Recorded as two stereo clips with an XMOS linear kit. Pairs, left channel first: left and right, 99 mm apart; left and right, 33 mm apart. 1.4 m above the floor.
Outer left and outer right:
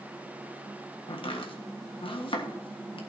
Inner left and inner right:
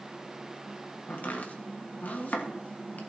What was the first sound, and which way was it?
Chopping, 60° left (ahead or behind).